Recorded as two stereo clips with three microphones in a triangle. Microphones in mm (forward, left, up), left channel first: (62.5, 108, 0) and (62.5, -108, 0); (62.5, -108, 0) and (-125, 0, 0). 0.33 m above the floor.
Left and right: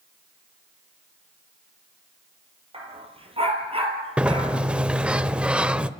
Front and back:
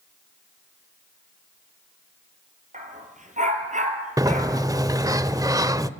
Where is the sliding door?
165° right, 0.6 m.